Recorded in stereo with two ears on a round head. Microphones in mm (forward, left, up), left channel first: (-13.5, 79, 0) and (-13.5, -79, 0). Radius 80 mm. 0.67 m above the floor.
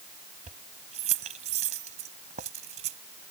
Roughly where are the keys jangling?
Right.